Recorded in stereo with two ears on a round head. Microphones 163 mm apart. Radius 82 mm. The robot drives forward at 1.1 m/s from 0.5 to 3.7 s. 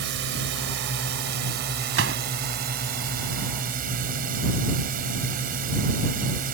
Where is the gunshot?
70° right (ahead or behind); by 2.2 s 75° right (ahead or behind).